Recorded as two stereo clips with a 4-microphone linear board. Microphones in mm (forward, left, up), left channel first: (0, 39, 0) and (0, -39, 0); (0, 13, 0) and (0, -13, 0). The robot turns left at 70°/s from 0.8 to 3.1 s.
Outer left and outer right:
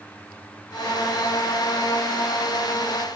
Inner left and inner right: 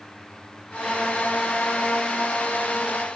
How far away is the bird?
I don't hear a bird.